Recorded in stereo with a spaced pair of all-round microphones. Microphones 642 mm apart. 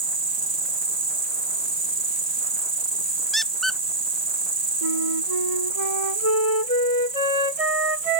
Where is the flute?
60° right (ahead or behind).